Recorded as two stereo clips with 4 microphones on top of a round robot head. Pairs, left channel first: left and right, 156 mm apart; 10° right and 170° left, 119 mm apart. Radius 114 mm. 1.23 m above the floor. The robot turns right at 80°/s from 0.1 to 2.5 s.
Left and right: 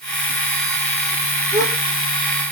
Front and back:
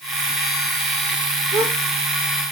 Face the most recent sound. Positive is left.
turn(degrees=30)